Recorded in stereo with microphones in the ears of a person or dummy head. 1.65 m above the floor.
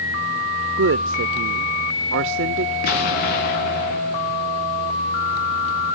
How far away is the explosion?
About 2 m.